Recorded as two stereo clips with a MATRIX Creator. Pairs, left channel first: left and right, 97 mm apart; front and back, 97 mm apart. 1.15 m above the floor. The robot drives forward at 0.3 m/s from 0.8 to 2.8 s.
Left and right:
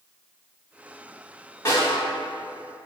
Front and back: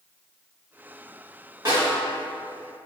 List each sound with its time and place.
1.6 s a snare drum: 145° left, 1.7 m